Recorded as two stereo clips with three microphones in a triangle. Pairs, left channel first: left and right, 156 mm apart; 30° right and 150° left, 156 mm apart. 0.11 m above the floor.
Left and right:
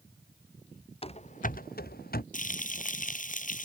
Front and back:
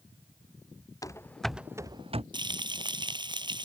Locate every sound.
1.0 s running footsteps: 40° left; by 2.2 s 105° left
2.3 s frying: 95° left